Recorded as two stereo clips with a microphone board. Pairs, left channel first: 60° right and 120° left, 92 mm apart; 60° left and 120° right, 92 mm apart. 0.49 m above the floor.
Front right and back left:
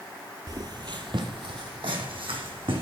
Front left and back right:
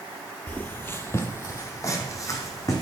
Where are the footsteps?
125° left, 0.6 m; by 2.8 s 110° left, 1.8 m.